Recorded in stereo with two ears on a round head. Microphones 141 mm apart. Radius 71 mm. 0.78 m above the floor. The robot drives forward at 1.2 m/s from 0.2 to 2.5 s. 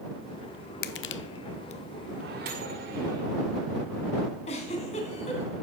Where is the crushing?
65° left (ahead or behind), 0.9 m; by 1.8 s 45° left (ahead or behind), 1.1 m.